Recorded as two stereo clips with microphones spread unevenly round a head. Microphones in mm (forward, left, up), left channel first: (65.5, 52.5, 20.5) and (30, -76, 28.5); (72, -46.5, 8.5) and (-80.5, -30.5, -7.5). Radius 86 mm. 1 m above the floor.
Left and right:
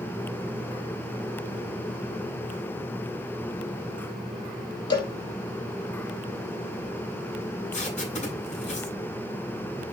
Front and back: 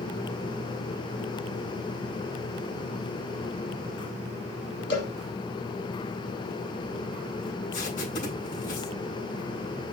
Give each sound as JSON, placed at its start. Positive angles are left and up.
{"t": 4.9, "sound": "a cowbell", "azimuth_deg": 20, "distance_m": 7.0}
{"t": 7.7, "sound": "tape being pulled", "azimuth_deg": 45, "distance_m": 10.0}